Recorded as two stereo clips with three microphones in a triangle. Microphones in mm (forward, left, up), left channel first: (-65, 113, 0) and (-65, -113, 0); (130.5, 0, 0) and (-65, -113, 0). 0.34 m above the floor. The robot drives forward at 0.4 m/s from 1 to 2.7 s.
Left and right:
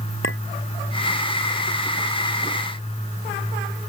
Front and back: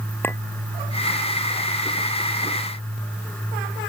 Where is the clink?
110° left.